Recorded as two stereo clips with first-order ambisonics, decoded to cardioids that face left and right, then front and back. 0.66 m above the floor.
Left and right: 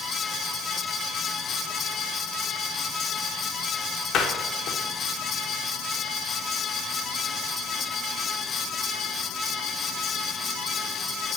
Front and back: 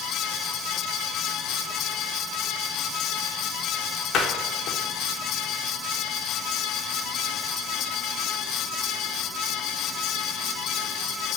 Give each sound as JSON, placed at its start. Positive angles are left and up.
{"t": 4.1, "sound": "a door slam", "azimuth_deg": 45, "distance_m": 1.2}